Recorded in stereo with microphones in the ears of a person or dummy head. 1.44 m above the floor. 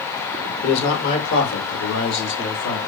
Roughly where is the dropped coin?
I don't hear a dropped coin.